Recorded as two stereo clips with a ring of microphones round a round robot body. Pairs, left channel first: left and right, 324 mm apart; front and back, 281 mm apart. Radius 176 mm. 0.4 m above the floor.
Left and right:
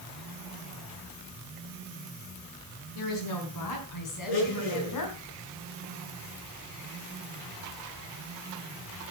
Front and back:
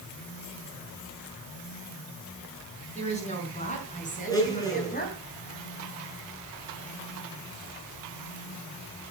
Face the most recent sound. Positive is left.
turn(degrees=75)